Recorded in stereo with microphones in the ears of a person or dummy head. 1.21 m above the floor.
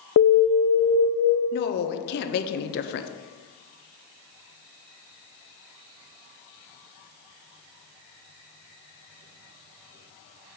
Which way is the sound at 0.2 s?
70° left (ahead or behind).